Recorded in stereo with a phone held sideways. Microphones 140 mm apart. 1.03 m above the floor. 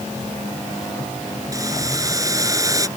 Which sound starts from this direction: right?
Boiling, at 1.5 s.